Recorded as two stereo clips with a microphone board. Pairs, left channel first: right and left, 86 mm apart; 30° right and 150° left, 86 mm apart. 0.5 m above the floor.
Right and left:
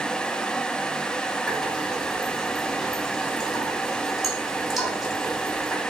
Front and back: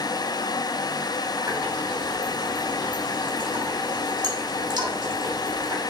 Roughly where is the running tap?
Behind.